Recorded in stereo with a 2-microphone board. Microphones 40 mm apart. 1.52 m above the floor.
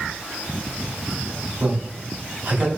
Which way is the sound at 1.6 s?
60° right (ahead or behind).